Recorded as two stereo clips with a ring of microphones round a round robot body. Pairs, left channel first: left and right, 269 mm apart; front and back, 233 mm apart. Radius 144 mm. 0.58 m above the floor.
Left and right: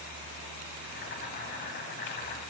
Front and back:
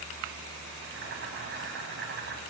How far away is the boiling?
About 3 m.